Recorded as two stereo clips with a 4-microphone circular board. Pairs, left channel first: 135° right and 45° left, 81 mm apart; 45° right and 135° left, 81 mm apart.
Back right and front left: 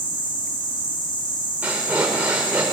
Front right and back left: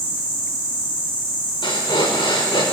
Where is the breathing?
25° right, 3.5 m.